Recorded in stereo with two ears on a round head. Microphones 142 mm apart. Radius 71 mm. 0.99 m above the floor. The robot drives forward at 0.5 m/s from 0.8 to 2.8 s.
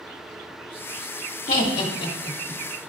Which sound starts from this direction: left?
Laughter, at 1.5 s.